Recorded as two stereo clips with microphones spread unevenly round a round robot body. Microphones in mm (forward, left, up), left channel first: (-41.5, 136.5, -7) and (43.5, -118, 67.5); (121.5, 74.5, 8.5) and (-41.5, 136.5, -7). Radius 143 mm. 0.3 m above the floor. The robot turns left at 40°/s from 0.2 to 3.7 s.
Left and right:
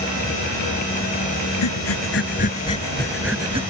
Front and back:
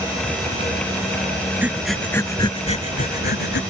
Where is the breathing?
80° left; by 3.6 s straight ahead.